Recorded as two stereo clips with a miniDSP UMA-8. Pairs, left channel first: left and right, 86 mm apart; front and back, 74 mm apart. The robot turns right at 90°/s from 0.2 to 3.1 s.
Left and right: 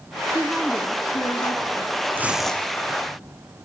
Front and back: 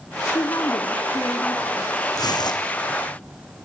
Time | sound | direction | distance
0.3 | a woman speaking | 30° right | 2.5 m
2.1 | tearing paper | 25° right | 2.5 m